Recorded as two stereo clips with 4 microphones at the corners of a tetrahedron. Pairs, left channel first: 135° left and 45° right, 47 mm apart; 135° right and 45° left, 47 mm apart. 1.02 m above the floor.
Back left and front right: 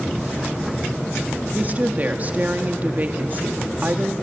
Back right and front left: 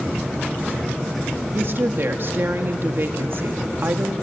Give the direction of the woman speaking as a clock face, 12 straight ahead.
12 o'clock.